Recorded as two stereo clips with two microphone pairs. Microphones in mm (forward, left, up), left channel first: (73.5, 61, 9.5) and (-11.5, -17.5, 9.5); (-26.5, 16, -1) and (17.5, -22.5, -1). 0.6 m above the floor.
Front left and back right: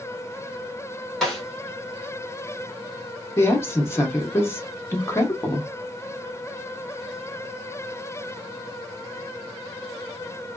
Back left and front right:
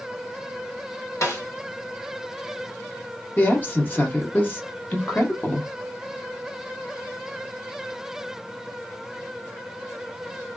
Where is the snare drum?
130° left, 1.5 m.